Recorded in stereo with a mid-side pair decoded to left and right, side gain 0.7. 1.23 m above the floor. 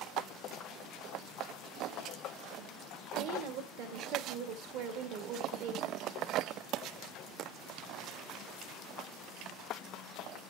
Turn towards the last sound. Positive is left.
turn(degrees=-70)